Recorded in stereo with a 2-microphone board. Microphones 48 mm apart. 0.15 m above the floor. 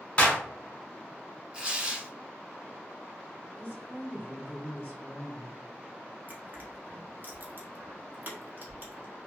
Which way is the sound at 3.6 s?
35° right (ahead or behind).